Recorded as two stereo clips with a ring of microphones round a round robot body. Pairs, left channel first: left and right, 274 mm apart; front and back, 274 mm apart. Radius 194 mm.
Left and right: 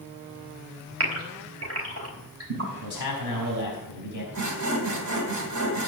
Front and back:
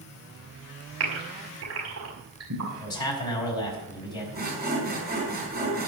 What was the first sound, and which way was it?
A gasp, 125° right.